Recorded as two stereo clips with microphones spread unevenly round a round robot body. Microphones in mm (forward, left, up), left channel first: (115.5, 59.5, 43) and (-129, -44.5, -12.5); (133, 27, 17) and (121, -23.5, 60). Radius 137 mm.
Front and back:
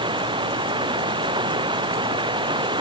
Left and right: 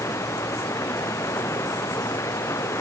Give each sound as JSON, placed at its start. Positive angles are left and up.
{"t": 0.0, "sound": "running water", "azimuth_deg": 130}